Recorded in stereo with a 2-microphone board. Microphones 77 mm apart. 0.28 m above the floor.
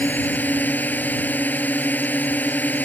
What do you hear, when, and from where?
0.0 s a drone: 20° left (ahead or behind)